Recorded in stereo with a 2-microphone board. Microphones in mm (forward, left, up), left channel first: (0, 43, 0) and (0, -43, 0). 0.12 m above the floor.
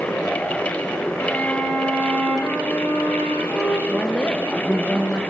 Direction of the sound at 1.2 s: 20° left (ahead or behind).